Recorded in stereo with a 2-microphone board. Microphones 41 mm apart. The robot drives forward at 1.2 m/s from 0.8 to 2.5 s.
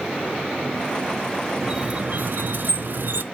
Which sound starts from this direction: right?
A squeak, at 1.6 s.